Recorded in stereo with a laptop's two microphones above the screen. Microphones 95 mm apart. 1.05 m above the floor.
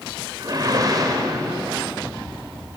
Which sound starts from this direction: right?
A whoosh, at 0.4 s.